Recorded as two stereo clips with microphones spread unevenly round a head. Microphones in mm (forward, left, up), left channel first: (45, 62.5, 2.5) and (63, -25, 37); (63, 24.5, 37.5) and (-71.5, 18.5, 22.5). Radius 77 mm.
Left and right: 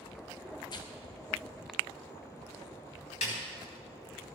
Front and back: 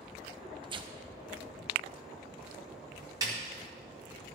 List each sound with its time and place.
0.6 s tearing paper: 130° left, 0.8 m
3.2 s a snare drum: 115° left, 2.5 m